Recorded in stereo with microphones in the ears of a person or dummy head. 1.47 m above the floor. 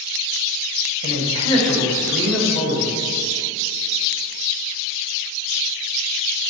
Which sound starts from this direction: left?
A man speaking, at 1.0 s.